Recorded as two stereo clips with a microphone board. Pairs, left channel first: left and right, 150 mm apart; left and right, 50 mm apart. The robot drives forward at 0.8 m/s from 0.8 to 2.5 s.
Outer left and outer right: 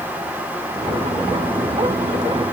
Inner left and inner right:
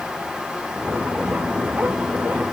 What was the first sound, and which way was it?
Only background noise.